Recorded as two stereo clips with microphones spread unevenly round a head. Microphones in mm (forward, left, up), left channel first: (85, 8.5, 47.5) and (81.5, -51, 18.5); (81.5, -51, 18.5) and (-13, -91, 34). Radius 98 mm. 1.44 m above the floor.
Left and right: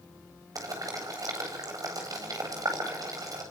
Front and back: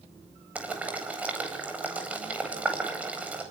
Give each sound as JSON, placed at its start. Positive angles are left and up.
{"t": 0.6, "sound": "boiling", "azimuth_deg": -80, "distance_m": 9.0}